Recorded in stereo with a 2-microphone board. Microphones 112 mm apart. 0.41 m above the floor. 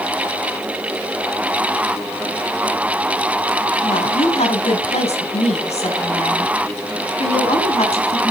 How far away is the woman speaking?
About 2.5 m.